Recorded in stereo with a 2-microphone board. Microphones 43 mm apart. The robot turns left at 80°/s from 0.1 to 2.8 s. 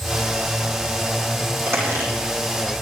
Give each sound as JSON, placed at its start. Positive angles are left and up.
{"t": 1.7, "sound": "a squeak", "side_deg": -75, "distance_m": 8.0}